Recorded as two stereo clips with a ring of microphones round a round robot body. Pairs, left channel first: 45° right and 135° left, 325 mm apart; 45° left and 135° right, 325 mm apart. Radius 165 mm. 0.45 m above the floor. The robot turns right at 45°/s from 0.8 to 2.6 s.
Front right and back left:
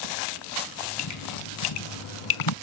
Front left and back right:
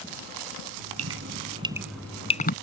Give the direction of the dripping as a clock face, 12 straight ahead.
3 o'clock.